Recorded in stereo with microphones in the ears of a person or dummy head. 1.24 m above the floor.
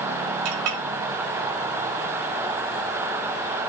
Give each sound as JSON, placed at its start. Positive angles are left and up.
{"t": 0.5, "sound": "a clink", "side_deg": -85, "distance_m": 2.5}